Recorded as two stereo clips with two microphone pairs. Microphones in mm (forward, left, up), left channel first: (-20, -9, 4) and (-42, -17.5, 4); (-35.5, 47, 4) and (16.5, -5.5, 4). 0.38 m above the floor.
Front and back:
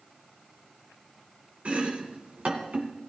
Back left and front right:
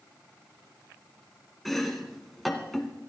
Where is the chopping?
140° right, 1.8 m.